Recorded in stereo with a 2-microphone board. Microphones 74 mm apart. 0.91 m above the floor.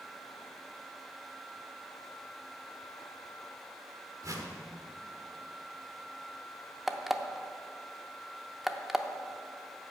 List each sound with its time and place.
4.2 s a whoosh: 50° right (ahead or behind), 1.2 m
6.9 s an alarm clock: centre (ahead or behind), 0.6 m